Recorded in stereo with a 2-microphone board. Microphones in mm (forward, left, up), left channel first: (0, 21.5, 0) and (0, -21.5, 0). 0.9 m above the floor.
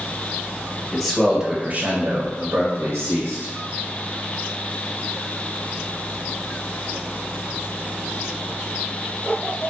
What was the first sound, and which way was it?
A man speaking, 10° left (ahead or behind).